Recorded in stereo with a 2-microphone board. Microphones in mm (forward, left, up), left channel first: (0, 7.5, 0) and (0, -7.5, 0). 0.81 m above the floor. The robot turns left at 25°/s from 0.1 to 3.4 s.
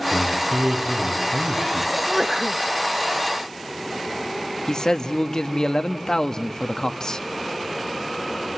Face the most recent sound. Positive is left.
turn(degrees=50)  # may be behind; listen again after turning